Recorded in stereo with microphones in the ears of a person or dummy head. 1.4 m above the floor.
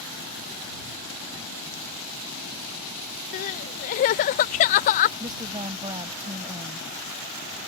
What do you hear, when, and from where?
3.3 s crying: 35° left (ahead or behind)
5.2 s a woman speaking: 20° right (ahead or behind)